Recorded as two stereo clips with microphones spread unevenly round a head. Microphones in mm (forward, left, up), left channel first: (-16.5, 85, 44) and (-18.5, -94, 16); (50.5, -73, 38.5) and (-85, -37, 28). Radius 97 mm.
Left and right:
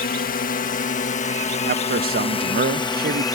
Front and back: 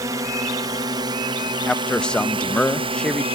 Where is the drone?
110° left; by 3.4 s 160° left.